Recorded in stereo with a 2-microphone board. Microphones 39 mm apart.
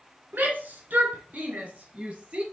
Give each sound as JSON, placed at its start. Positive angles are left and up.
{"t": 0.3, "sound": "a shout", "side_deg": -60, "distance_m": 2.5}